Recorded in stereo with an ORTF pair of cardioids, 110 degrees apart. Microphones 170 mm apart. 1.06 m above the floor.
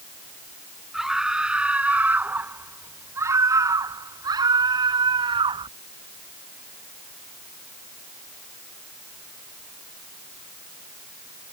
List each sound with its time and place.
0.9 s a scream: 5° right; by 5.7 s 30° right